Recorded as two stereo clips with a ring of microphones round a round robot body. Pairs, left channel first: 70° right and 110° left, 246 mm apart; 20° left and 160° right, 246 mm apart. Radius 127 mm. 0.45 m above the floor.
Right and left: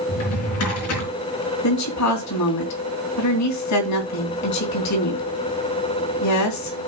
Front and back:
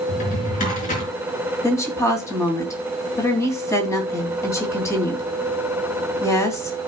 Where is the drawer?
40° right, 4 m.